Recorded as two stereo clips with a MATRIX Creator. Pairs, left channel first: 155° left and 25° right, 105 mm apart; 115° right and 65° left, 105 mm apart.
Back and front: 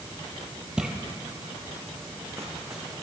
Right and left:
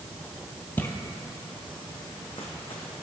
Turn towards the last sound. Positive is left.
turn(degrees=-90)